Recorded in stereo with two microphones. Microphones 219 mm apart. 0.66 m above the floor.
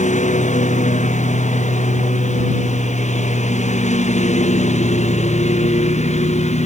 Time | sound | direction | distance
0.0 | a lawn mower | 35° left (ahead or behind) | ?